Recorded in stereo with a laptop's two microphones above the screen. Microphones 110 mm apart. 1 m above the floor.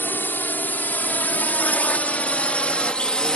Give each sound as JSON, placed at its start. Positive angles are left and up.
{"t": 0.0, "sound": "a drone", "side_deg": 20}